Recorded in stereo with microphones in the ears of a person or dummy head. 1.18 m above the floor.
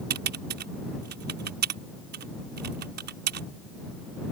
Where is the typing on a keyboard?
50° right (ahead or behind).